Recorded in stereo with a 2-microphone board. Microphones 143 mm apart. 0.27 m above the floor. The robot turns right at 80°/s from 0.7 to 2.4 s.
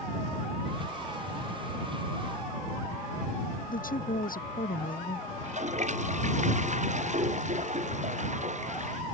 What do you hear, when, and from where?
3.7 s a woman speaking: 80° left
5.4 s a toilet flushing: 55° right (ahead or behind)